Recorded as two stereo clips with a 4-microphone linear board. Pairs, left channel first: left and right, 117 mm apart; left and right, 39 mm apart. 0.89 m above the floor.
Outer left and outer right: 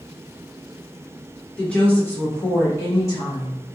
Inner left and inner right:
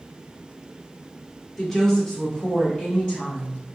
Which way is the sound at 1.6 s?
10° left (ahead or behind).